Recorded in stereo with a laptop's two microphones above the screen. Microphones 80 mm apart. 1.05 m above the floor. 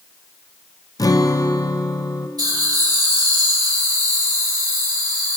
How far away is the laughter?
About 4 m.